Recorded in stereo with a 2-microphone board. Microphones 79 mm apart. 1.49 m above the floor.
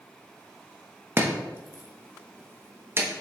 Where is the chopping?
30° right (ahead or behind), 1.0 m.